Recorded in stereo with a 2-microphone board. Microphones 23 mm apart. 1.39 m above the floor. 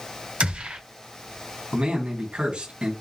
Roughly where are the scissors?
No scissors in this recording.